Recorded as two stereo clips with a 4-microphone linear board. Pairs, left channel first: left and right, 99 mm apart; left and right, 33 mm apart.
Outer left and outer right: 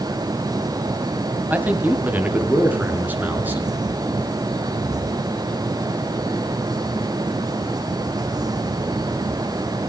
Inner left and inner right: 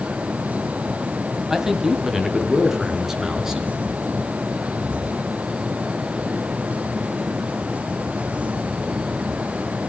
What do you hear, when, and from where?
1.5 s a man speaking: 15° right (ahead or behind), 2 m; by 3.8 s 20° right (ahead or behind), 5 m